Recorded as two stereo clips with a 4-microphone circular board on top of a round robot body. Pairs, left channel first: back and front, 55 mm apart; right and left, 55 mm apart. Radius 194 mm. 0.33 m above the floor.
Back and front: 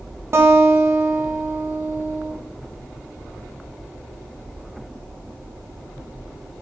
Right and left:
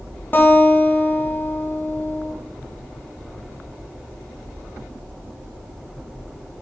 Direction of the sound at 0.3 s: 40° right.